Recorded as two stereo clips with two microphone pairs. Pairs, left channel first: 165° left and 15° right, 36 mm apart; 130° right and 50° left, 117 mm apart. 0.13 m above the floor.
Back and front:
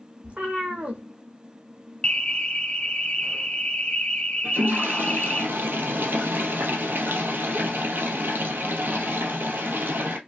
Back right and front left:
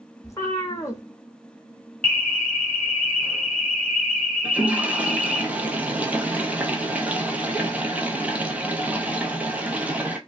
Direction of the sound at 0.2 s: 70° right.